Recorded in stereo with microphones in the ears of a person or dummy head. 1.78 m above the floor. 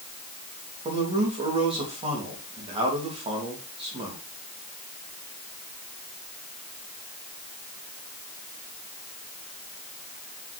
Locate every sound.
0.8 s a man speaking: 25° right (ahead or behind), 3 m